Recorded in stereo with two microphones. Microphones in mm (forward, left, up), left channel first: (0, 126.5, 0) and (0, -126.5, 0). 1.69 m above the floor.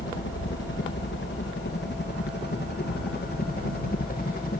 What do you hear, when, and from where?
0.0 s a helicopter: 50° left (ahead or behind); by 4.6 s 35° left (ahead or behind)